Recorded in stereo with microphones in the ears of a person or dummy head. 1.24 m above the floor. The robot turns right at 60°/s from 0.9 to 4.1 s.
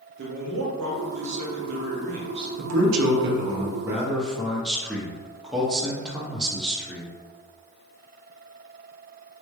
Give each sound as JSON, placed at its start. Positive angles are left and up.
{"t": 0.2, "sound": "a man speaking", "azimuth_deg": -115, "distance_m": 1.4}
{"t": 2.6, "sound": "a man speaking", "azimuth_deg": -90, "distance_m": 1.1}